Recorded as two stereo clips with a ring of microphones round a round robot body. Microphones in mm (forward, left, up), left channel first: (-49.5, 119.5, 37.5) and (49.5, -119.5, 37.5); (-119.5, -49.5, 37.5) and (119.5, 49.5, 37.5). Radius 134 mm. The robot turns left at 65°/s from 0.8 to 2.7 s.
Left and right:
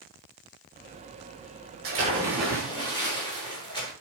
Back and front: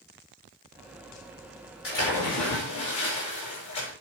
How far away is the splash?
About 7.5 m.